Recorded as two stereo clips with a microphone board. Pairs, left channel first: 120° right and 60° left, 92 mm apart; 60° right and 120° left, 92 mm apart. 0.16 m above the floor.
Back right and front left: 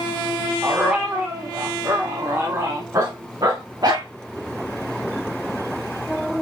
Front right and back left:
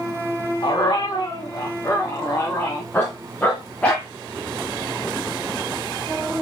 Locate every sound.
0.6 s a dog barking: 15° right, 3.5 m; by 4.1 s 15° left, 5 m